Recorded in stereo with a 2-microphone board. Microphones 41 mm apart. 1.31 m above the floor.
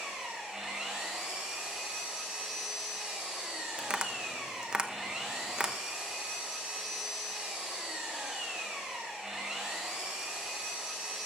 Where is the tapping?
25° right (ahead or behind), 0.9 m.